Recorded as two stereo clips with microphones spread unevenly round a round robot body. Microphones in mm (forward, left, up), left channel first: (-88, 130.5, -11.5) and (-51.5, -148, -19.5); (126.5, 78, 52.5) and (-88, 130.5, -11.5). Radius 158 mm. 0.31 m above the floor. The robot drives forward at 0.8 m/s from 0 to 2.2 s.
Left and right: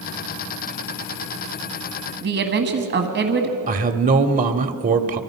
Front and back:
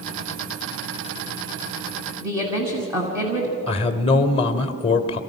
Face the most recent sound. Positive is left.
turn(degrees=-85)